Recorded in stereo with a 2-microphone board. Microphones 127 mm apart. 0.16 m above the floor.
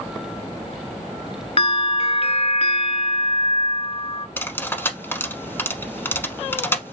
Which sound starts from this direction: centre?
Cutlery clinking, at 4.4 s.